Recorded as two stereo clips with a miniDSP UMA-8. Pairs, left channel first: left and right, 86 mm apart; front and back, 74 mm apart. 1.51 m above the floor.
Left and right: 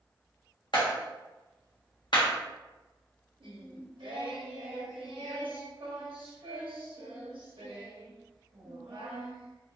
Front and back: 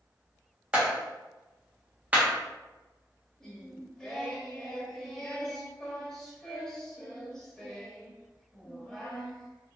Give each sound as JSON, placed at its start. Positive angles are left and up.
{"t": 0.7, "sound": "a clap", "azimuth_deg": 115, "distance_m": 1.3}
{"t": 3.4, "sound": "singing", "azimuth_deg": -80, "distance_m": 1.0}